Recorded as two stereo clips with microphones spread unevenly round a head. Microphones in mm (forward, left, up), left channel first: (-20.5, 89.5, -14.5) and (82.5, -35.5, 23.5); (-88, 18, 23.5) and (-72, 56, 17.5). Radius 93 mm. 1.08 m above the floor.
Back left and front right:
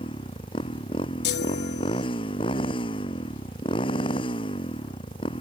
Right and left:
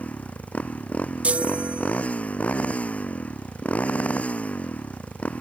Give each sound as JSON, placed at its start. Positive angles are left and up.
{"t": 0.0, "sound": "a motorcycle", "azimuth_deg": -165}
{"t": 1.2, "sound": "a chime", "azimuth_deg": 120}